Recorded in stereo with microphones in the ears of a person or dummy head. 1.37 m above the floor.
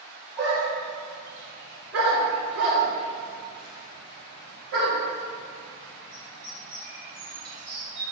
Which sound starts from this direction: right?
A dog barking, at 0.4 s.